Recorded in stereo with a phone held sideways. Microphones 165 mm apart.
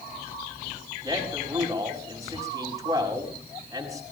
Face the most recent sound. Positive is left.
turn(degrees=-20)  # may be behind; listen again after turning